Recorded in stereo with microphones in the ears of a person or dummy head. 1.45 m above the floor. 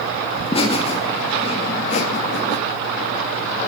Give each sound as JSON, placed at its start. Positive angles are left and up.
{"t": 0.3, "sound": "laughter", "side_deg": 25, "distance_m": 2.5}